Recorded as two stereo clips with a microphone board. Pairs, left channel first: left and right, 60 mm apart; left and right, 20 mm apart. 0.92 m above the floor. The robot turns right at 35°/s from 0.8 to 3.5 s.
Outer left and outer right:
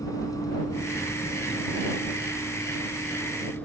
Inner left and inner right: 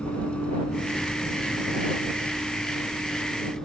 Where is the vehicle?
70° left (ahead or behind); by 3.7 s 25° left (ahead or behind).